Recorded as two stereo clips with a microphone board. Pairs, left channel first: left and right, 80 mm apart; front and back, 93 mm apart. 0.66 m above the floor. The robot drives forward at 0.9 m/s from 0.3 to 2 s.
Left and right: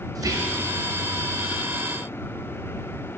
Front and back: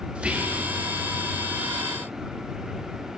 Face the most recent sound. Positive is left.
turn(degrees=-165)